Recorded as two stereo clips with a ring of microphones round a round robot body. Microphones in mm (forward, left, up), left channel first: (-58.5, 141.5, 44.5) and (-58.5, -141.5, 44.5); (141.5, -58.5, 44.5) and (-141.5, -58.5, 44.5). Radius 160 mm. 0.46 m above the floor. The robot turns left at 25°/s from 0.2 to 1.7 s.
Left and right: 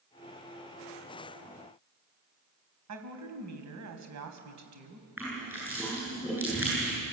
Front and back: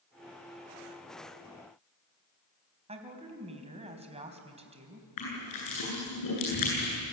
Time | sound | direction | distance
2.9 | a woman speaking | 110° right | 3.5 m
5.2 | crushing | 5° right | 9 m